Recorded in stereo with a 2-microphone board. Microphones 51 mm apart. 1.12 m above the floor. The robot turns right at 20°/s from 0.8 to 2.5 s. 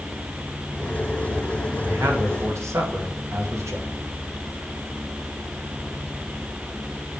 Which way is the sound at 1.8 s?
55° right (ahead or behind).